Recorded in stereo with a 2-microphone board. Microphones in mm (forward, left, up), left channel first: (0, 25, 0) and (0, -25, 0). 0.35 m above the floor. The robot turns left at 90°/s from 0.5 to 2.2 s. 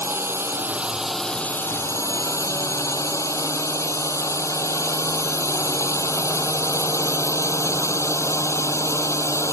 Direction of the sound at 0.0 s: 125° right.